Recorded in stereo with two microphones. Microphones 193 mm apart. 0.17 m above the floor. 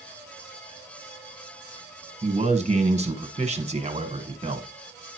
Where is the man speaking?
35° right (ahead or behind), 1.5 m.